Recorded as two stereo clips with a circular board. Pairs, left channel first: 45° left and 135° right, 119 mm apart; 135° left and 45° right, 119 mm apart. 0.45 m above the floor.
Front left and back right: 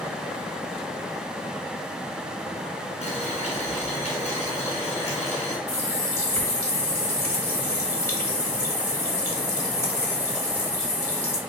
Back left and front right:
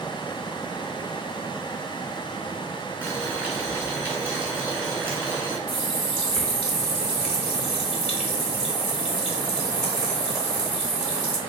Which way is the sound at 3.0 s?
25° left.